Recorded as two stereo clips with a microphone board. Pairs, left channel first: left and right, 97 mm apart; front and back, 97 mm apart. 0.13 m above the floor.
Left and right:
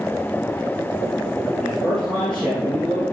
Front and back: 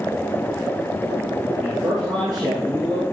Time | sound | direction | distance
1.6 | a man speaking | 165° left | 2.5 m